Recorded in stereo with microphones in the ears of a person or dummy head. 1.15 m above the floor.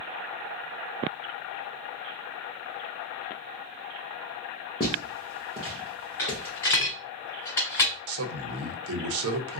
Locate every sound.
4.8 s footsteps: 25° left (ahead or behind), 1.3 m; by 6.9 s 15° left (ahead or behind), 1.9 m
6.2 s a dropped coin: 20° left (ahead or behind), 1.3 m
8.1 s a man speaking: 80° right, 0.8 m